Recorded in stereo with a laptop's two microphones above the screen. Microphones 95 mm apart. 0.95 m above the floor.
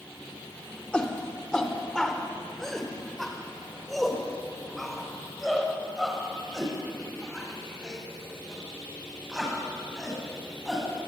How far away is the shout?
About 3.5 m.